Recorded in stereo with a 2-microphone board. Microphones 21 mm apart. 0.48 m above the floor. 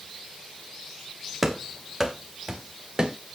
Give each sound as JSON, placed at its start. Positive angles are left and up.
{"t": 1.4, "sound": "running footsteps", "side_deg": -5, "distance_m": 1.6}